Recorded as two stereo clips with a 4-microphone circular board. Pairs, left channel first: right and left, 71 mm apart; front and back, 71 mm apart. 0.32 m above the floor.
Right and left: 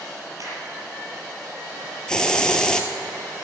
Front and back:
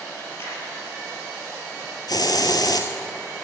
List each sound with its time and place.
0.4 s a crack: 50° left, 5 m
2.1 s a hiss: 10° right, 1.3 m